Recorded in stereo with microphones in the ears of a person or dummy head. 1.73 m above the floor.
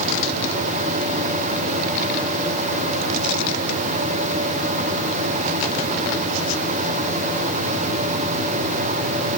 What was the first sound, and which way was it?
Only background noise.